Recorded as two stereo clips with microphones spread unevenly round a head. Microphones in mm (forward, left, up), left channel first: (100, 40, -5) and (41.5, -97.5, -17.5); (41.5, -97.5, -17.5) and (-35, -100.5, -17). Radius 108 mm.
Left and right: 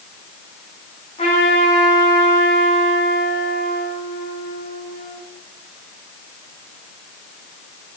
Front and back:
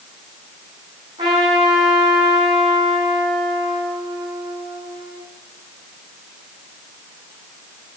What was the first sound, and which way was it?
A trumpet, 130° left.